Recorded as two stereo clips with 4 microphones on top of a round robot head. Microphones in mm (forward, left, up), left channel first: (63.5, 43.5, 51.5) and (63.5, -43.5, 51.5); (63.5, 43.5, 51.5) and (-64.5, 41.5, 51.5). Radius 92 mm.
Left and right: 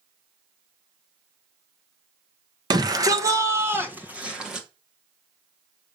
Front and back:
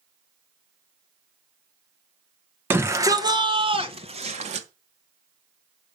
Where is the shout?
110° right, 1.2 m; by 4.7 s 175° right, 1.4 m.